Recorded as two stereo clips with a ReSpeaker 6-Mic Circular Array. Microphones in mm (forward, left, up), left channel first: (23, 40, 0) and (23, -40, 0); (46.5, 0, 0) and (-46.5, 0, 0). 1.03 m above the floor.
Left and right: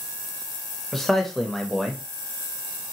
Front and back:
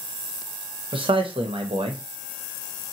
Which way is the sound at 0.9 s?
175° left.